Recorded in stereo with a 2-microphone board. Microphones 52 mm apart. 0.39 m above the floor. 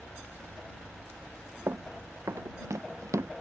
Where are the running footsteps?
65° right (ahead or behind); by 3.3 s 75° right (ahead or behind).